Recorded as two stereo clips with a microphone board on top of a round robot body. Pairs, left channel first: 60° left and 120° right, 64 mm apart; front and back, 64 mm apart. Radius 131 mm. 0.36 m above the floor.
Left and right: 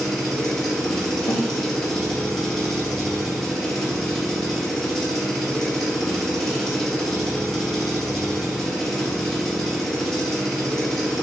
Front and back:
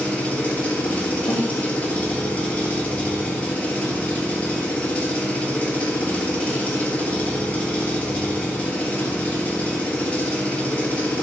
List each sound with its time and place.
0.0 s an engine running: 20° right, 0.9 m
1.3 s a guitar: 45° left, 0.6 m